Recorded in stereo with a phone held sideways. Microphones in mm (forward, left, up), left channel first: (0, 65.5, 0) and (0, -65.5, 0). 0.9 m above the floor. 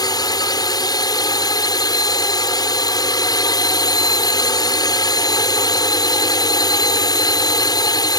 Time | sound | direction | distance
0.0 | a drone | 30° left (ahead or behind) | ?